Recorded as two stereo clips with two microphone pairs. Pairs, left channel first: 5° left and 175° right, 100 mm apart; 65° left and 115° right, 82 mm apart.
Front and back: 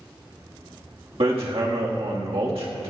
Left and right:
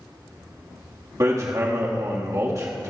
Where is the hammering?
160° right, 1.6 m.